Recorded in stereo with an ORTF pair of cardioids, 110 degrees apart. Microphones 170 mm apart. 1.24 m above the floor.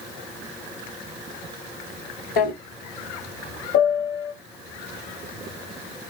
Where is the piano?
70° left, 1.1 m.